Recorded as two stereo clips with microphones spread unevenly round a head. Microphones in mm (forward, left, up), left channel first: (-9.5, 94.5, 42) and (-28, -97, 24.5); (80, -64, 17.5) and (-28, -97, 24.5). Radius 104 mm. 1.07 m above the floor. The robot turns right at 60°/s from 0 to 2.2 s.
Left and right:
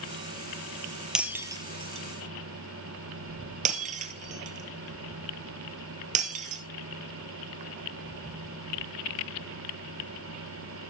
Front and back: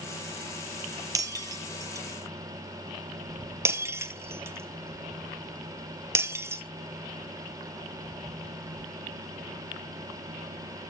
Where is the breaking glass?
170° left, 1.2 m; by 6.6 s 125° right, 1.2 m.